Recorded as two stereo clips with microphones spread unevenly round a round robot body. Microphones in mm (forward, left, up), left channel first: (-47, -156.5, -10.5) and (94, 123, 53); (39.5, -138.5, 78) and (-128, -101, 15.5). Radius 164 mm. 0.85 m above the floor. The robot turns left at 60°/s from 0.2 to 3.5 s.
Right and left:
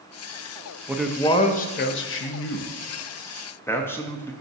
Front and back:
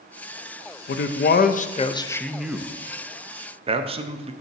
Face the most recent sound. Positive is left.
turn(degrees=175)